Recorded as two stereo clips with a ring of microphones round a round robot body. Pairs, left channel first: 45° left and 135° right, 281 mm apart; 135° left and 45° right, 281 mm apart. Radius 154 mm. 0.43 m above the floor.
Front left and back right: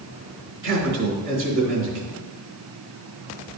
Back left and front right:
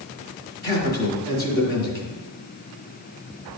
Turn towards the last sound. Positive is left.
turn(degrees=-170)